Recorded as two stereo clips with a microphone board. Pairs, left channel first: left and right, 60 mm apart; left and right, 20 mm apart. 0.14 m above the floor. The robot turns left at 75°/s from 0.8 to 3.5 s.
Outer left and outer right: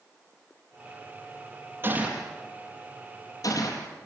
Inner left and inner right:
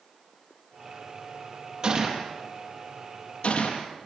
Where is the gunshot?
35° right (ahead or behind), 4.5 m; by 3.9 s 70° left (ahead or behind), 4.5 m.